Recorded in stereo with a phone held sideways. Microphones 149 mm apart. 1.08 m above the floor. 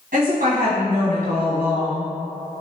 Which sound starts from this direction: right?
A woman speaking, at 0.1 s.